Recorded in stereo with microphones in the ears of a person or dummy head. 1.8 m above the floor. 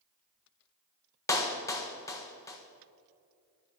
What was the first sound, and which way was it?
A clap, 20° left (ahead or behind).